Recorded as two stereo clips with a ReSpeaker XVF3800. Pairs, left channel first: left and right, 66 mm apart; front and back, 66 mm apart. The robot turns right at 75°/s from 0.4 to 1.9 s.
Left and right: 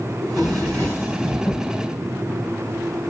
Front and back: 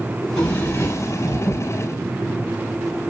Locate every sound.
0.2 s a drawer: 75° right, 3 m; by 1.6 s 15° left, 3 m